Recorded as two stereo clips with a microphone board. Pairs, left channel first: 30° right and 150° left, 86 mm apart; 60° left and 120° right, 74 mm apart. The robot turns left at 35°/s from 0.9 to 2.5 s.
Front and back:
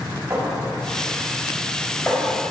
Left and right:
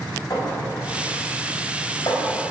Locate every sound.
0.3 s a clink: 90° left, 3.5 m; by 2.4 s 35° left, 3.5 m